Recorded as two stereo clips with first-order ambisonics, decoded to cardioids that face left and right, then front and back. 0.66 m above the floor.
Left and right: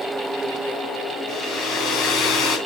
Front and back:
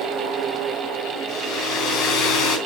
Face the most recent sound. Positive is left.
turn(degrees=45)